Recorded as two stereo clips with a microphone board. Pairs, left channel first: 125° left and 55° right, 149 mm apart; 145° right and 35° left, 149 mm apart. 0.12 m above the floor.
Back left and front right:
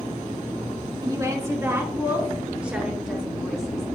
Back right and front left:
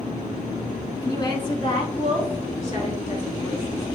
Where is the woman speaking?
100° right, 1.9 m; by 3.9 s 145° right, 3 m.